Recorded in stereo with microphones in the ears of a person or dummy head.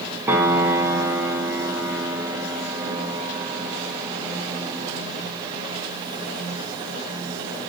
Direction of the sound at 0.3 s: 10° right (ahead or behind).